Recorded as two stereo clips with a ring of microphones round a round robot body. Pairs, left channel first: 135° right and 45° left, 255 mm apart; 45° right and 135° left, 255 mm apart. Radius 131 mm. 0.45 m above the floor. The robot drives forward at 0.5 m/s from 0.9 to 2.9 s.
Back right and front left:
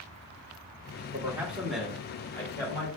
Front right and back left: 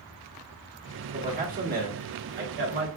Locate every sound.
1.1 s a man speaking: 110° left, 1.2 m; by 2.9 s 155° left, 1.6 m